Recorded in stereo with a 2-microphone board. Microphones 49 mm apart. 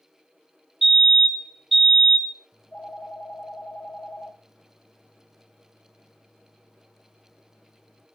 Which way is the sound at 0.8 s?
Centre (ahead or behind).